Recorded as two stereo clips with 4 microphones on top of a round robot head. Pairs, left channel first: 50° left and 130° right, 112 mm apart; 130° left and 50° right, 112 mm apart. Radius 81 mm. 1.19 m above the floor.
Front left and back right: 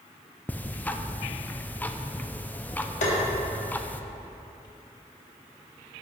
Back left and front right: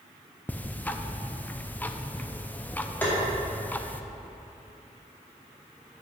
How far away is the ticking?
About 0.6 m.